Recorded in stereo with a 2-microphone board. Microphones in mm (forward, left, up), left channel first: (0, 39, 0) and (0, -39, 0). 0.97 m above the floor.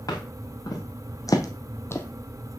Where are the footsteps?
50° left (ahead or behind), 3.5 m; by 2.1 s 25° left (ahead or behind), 1.1 m.